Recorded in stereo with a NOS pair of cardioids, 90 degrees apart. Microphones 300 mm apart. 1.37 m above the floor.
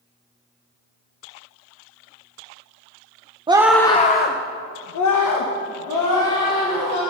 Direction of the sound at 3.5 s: 15° right.